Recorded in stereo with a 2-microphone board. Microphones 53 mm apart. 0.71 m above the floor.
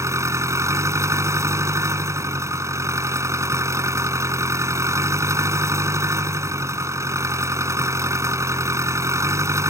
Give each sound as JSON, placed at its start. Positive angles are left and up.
{"t": 0.0, "sound": "an engine running", "side_deg": -65}